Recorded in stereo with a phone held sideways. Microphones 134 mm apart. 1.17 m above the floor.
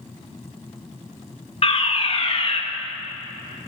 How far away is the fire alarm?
About 2.5 m.